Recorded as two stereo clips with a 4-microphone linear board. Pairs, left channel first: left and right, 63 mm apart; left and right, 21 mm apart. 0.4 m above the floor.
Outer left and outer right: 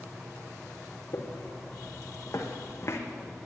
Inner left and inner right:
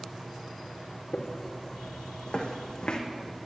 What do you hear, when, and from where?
1.1 s footsteps: 55° left (ahead or behind), 2.5 m; by 3.0 s 45° left (ahead or behind), 1.4 m